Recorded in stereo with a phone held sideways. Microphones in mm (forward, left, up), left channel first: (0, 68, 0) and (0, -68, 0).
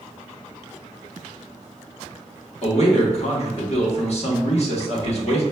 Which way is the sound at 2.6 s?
50° left (ahead or behind).